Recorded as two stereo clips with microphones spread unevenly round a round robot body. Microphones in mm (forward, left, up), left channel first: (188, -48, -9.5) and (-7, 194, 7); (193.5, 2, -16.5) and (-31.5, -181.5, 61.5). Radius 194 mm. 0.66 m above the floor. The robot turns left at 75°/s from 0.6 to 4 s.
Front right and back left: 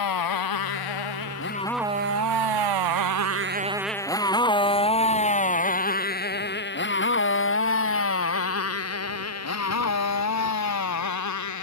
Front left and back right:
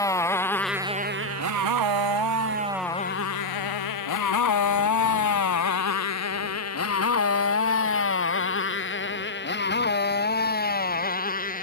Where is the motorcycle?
40° right; by 11.6 s 25° right.